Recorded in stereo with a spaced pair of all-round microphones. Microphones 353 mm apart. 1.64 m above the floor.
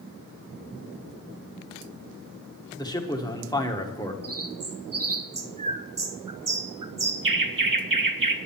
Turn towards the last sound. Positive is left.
turn(degrees=-65)  # may be behind; listen again after turning